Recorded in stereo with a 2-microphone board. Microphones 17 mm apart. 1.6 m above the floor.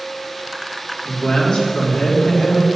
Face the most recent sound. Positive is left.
turn(degrees=55)  # may be behind; listen again after turning